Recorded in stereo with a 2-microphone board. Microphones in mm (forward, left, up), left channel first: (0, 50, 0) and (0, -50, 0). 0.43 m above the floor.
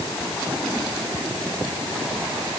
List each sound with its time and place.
Only background noise.